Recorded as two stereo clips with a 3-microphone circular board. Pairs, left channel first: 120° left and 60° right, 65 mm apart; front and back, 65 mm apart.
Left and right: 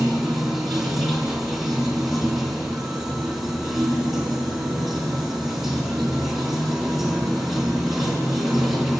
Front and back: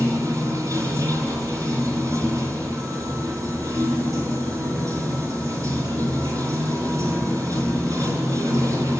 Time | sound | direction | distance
0.0 | running water | 145° right | 3.5 m